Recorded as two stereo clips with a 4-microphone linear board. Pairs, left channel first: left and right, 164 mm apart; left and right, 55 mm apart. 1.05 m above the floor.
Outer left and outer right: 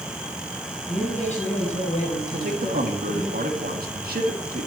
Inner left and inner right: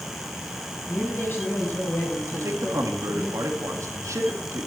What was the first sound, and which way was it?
A man speaking, 50° left (ahead or behind).